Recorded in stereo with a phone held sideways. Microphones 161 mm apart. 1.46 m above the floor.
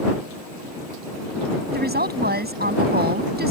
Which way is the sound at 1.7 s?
85° right.